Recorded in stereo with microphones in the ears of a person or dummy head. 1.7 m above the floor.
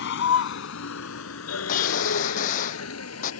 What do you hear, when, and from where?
0.0 s a vehicle: 70° left (ahead or behind); by 3.4 s 80° left
1.7 s a gunshot: 45° left (ahead or behind)